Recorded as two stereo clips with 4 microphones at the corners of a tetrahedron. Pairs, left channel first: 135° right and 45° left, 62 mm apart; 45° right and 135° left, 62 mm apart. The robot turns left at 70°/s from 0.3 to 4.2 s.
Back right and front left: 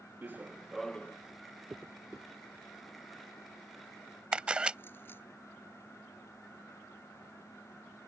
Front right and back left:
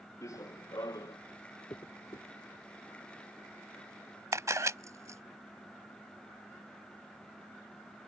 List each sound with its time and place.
0.2 s running footsteps: 15° right; by 1.2 s 75° right
1.7 s a dropped coin: 10° right; by 5.2 s 175° left
4.3 s a camera shutter: 115° left